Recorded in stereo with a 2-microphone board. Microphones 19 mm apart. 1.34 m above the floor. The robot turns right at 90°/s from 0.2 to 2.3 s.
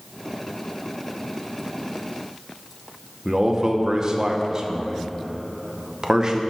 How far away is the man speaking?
About 0.9 m.